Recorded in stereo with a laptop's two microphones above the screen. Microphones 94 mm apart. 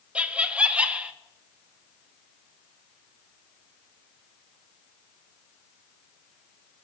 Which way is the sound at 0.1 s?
15° right (ahead or behind).